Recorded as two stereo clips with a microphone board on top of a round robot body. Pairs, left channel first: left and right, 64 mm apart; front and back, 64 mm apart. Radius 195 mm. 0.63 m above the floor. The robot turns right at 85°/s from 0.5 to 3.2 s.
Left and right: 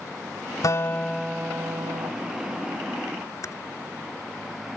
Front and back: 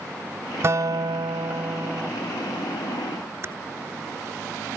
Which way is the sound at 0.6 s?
125° left.